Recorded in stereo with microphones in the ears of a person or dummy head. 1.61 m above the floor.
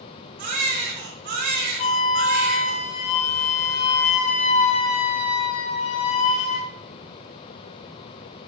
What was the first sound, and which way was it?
A baby crying, 50° right (ahead or behind).